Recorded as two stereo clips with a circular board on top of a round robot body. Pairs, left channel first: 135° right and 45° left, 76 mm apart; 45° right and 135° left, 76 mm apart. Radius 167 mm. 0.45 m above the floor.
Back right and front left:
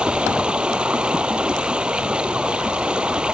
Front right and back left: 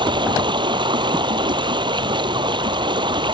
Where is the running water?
120° left.